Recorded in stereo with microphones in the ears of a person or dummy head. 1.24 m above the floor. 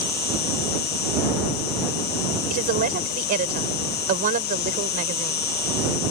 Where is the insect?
45° left (ahead or behind).